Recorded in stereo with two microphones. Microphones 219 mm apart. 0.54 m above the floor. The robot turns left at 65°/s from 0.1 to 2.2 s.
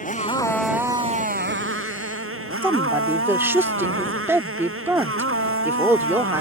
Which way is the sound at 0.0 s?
35° left.